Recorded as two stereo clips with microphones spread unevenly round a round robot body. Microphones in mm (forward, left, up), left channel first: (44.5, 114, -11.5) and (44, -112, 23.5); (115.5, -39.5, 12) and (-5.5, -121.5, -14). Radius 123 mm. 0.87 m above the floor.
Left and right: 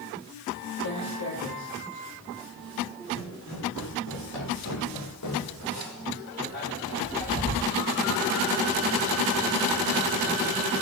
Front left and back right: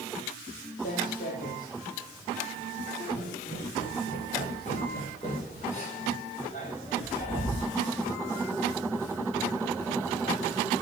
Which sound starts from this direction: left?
Footsteps, at 0.8 s.